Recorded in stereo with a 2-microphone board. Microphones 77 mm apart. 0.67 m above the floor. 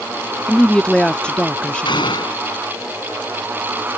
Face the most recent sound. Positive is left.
turn(degrees=85)